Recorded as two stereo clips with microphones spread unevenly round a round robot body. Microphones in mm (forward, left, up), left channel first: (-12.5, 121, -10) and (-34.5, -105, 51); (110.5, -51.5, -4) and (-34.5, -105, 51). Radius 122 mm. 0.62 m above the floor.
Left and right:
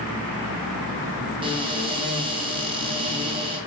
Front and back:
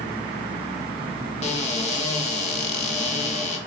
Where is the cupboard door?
25° right, 1.9 m.